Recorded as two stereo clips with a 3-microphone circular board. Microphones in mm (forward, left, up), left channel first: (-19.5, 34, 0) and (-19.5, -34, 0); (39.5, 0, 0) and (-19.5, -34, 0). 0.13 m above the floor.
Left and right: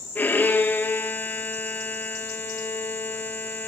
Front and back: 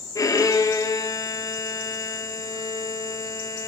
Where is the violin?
35° left, 2 m.